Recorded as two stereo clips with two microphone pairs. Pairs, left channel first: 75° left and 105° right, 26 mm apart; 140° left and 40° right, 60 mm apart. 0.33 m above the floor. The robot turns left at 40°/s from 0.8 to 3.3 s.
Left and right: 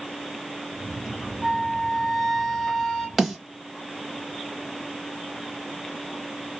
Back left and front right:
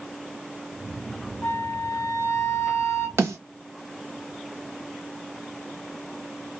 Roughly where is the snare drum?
Ahead right.